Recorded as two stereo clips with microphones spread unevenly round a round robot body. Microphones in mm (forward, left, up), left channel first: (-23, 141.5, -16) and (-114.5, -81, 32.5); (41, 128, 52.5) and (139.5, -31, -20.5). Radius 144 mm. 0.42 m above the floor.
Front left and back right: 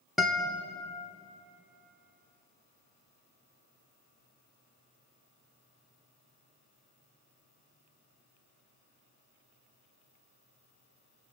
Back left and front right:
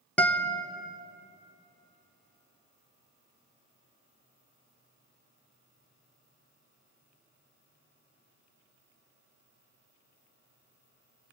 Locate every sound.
0.2 s a guitar: straight ahead, 1.0 m